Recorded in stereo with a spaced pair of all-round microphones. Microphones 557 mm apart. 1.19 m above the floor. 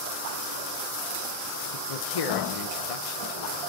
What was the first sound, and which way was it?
A man speaking, 80° left.